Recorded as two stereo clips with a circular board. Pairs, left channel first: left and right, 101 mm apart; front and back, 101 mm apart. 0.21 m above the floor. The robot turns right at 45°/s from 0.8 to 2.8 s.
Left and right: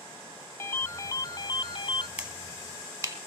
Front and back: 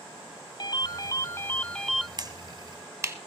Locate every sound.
0.6 s a ringtone: 35° left, 0.5 m; by 2.1 s 90° left, 0.5 m
2.2 s a finger snap: 165° right, 1.2 m; by 3.2 s 135° right, 1.2 m